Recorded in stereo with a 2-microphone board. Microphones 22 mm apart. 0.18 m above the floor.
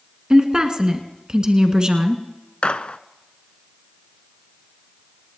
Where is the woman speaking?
35° right (ahead or behind), 1.8 m.